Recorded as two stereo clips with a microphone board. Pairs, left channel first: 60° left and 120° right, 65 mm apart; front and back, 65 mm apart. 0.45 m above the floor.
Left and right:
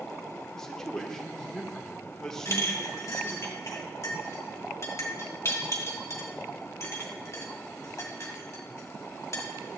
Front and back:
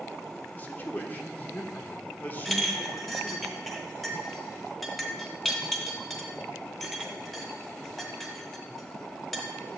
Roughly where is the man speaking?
Ahead.